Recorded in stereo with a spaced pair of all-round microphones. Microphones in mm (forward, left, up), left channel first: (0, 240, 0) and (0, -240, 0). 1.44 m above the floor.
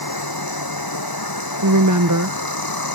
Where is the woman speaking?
40° right (ahead or behind).